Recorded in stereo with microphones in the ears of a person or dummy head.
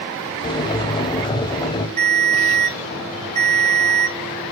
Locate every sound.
0.4 s boiling: 25° left (ahead or behind), 0.9 m
2.0 s a ringtone: 45° right (ahead or behind), 4 m